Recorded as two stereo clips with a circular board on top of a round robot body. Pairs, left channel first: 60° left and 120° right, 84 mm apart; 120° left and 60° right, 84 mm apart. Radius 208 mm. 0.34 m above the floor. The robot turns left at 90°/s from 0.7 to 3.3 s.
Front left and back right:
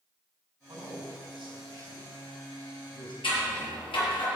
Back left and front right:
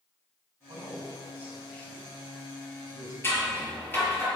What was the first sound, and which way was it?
A man speaking, 70° right.